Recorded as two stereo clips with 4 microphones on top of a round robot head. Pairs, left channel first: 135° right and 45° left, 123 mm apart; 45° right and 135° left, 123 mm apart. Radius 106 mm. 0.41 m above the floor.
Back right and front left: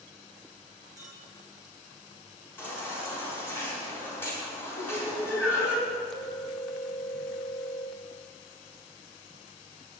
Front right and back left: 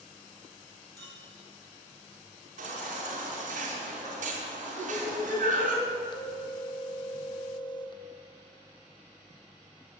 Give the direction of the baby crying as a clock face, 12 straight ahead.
7 o'clock.